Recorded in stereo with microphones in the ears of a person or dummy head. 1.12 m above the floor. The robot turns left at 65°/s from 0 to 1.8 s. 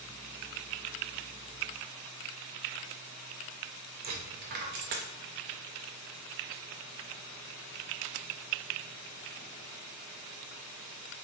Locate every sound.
4.0 s a dropped coin: 40° right (ahead or behind), 0.5 m